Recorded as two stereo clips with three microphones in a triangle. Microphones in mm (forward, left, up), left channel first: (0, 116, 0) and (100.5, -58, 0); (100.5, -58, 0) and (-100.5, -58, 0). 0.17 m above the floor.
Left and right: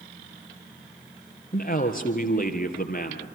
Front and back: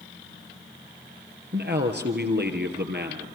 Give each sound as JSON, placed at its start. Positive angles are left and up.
{"t": 1.5, "sound": "a man speaking", "azimuth_deg": 160, "distance_m": 3.0}